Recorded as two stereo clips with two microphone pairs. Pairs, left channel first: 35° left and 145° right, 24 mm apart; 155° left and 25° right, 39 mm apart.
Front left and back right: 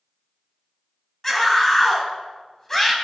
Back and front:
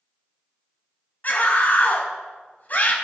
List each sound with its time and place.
1.2 s a scream: 110° left, 3.5 m